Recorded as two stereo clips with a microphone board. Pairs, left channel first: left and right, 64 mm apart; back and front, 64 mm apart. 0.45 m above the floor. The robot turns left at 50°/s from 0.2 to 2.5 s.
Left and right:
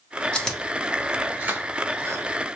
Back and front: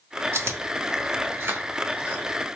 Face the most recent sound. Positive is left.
turn(degrees=-85)